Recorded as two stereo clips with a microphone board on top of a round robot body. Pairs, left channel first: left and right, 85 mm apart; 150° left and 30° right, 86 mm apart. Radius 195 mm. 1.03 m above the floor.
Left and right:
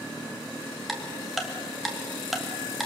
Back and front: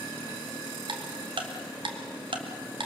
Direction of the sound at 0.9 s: Straight ahead.